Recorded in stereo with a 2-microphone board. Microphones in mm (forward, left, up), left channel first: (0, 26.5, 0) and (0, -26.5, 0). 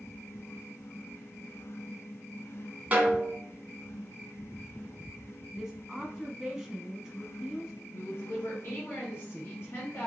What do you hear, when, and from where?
2.9 s a snare drum: 30° right (ahead or behind), 1.2 m
5.5 s a woman speaking: 10° right (ahead or behind), 1.1 m
7.9 s a woman speaking: 40° left (ahead or behind), 2 m